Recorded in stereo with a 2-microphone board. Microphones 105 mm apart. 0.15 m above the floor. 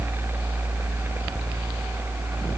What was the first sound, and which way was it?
Only background noise.